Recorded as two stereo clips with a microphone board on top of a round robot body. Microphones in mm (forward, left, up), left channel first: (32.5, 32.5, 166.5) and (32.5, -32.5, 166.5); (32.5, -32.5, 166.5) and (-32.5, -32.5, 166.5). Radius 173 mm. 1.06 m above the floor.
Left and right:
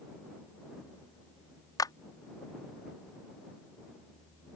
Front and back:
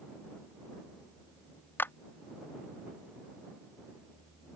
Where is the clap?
65° left.